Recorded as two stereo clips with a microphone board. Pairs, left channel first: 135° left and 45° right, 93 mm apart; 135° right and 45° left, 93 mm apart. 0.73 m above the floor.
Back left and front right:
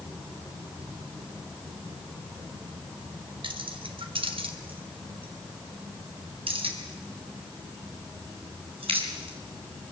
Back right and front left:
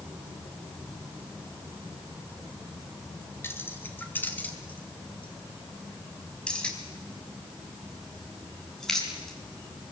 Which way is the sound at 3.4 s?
70° right.